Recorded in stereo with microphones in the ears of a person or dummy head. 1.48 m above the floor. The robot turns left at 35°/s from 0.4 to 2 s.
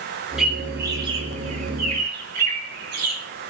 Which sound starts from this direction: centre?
A bird, at 0.4 s.